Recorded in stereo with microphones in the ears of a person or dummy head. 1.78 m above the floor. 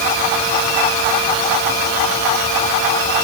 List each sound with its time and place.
Only background noise.